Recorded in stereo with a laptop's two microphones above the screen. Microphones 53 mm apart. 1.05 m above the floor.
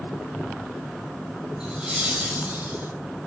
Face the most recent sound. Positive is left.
turn(degrees=-35)  # may be behind; listen again after turning